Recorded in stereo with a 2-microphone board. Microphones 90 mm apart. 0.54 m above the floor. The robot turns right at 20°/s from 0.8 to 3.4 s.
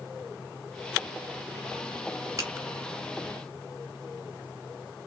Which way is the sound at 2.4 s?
40° right (ahead or behind).